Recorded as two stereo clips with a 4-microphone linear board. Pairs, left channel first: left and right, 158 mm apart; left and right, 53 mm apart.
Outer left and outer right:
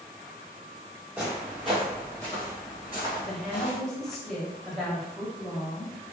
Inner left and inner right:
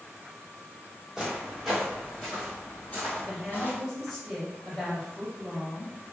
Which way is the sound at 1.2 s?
10° right (ahead or behind).